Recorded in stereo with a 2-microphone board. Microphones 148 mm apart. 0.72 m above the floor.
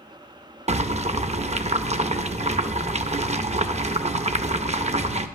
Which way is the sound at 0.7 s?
50° right (ahead or behind).